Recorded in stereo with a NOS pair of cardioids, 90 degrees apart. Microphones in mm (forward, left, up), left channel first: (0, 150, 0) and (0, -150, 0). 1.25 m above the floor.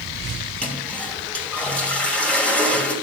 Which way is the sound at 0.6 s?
5° left.